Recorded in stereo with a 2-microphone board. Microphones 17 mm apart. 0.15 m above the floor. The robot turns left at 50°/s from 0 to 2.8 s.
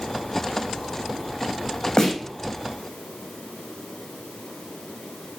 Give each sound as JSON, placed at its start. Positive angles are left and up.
{"t": 2.0, "sound": "a snare drum", "side_deg": 35, "distance_m": 6.5}